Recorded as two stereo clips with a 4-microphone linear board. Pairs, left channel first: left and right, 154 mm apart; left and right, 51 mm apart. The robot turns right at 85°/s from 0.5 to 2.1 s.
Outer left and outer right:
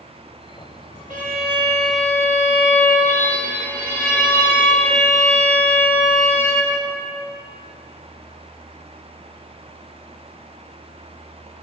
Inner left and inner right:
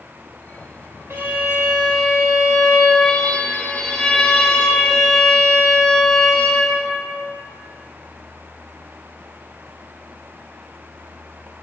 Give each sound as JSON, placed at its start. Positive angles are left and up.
{"t": 1.1, "sound": "a violin", "azimuth_deg": -70, "distance_m": 1.0}